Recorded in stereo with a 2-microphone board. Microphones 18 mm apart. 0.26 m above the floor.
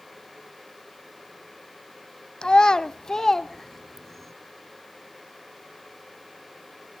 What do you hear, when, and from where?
2.4 s a child speaking: 50° left (ahead or behind), 0.7 m; by 4.3 s 5° left (ahead or behind), 1.3 m